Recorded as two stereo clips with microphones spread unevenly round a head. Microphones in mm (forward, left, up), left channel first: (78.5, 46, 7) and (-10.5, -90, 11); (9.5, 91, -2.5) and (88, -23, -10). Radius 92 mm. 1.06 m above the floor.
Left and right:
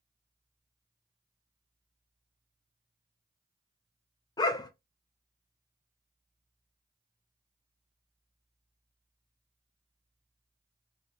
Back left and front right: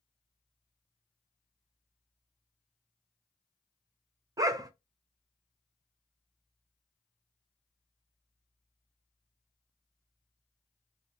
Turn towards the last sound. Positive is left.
turn(degrees=0)